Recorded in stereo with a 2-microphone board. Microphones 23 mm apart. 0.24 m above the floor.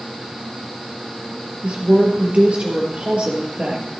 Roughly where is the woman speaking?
Right.